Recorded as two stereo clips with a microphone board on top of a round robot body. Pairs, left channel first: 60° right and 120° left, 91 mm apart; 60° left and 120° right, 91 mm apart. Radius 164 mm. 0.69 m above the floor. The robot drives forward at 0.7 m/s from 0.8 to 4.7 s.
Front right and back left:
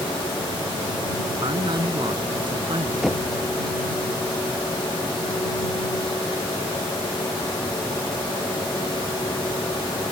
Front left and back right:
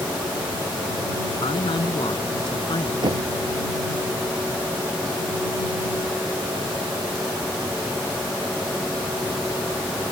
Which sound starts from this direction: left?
A man speaking, at 1.4 s.